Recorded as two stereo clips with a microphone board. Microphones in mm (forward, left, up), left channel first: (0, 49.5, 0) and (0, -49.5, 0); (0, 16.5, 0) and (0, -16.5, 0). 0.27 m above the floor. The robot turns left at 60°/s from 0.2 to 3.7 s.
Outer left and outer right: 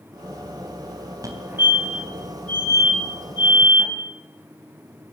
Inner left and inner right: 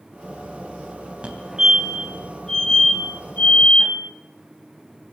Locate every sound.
1.2 s a fire alarm: 35° right (ahead or behind), 3 m; by 3.9 s 50° left (ahead or behind), 3 m